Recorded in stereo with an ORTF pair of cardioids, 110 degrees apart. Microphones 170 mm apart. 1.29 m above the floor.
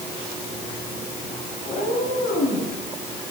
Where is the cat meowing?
60° left, 4 m.